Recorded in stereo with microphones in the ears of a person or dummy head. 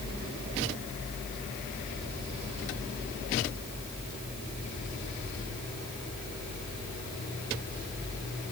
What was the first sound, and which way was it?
Only background noise.